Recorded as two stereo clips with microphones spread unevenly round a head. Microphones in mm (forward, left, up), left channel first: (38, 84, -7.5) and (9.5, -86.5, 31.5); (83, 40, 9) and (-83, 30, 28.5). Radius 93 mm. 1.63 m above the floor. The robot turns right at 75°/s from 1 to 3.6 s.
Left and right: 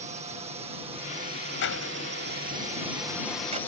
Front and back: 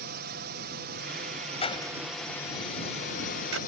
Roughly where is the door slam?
Ahead left.